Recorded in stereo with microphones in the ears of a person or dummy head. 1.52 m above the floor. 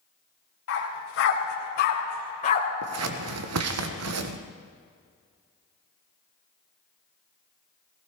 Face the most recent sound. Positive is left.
turn(degrees=-80)